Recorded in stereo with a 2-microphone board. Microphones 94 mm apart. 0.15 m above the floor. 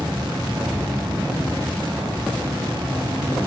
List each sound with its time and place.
0.0 s an insect: 55° right (ahead or behind), 1.3 m